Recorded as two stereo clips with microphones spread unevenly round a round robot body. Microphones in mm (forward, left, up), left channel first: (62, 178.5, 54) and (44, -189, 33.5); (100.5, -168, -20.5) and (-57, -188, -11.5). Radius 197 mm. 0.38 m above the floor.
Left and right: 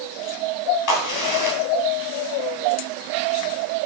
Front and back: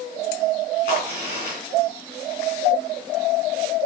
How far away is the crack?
About 3 m.